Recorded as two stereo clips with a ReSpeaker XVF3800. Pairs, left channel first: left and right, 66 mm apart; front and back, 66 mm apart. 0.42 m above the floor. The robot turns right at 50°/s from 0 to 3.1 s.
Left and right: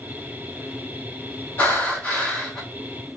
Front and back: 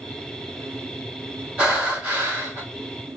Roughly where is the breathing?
Behind left.